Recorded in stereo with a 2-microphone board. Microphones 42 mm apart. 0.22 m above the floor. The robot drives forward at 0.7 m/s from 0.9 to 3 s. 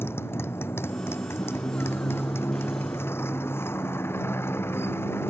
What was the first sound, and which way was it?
A motorcycle, 85° left.